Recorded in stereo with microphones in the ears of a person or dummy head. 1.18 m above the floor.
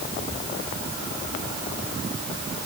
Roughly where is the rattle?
I don't hear a rattle.